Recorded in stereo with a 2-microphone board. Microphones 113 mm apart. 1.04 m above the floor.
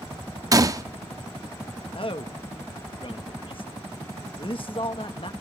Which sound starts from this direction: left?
A man speaking, at 1.9 s.